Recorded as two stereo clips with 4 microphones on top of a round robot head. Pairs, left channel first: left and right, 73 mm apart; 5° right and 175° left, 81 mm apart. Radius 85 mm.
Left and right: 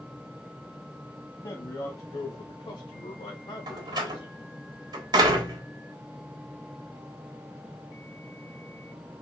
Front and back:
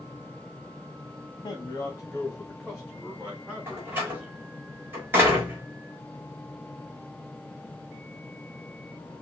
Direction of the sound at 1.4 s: 40° left.